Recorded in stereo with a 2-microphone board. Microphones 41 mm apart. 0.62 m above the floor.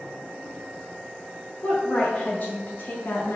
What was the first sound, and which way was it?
A woman speaking, 25° left (ahead or behind).